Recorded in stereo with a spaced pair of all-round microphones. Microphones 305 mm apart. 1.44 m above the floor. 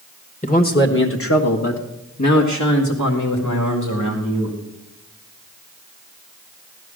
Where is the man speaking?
25° left (ahead or behind), 1.2 m; by 4.5 s 80° left, 2.5 m.